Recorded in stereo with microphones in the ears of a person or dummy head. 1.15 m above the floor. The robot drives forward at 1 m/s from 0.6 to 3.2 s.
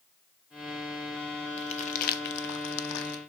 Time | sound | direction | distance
1.6 | crumpling | 30° left (ahead or behind) | 1.5 m